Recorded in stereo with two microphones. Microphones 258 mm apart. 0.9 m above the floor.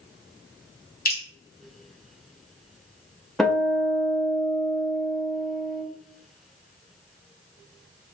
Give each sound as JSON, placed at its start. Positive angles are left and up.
{"t": 1.1, "sound": "dripping", "side_deg": 35, "distance_m": 2.0}
{"t": 3.4, "sound": "a guitar", "side_deg": 0, "distance_m": 0.8}